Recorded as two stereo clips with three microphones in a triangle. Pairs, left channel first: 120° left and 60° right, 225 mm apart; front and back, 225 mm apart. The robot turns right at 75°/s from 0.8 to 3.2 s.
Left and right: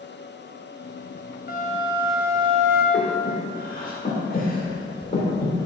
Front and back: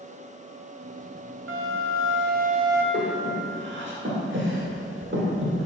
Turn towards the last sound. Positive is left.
turn(degrees=165)